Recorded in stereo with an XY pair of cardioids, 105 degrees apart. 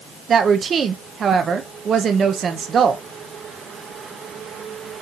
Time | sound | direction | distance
0.3 | a woman speaking | 45° right | 0.7 m